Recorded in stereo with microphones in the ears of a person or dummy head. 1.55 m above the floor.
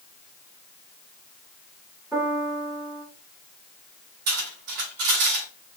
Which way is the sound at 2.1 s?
10° right (ahead or behind).